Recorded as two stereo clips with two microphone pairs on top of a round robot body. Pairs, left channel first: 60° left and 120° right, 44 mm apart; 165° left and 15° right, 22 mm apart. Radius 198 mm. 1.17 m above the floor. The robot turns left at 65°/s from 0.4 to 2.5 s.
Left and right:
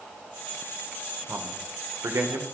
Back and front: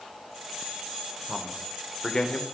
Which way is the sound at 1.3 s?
70° right.